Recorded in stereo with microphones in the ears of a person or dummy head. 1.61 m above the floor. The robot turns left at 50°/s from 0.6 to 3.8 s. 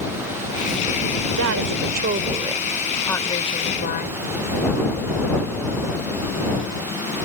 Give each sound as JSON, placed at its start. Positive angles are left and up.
{"t": 1.3, "sound": "a woman speaking", "azimuth_deg": -105}